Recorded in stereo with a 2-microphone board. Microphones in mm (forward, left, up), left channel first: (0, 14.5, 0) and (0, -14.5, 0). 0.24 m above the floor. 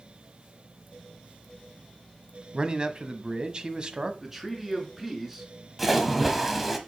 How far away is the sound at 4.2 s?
About 3 m.